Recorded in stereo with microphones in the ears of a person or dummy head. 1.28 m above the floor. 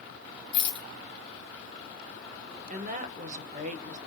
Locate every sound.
0.5 s a rattle: 75° left (ahead or behind), 1.7 m
2.7 s a woman speaking: 40° right (ahead or behind), 1.0 m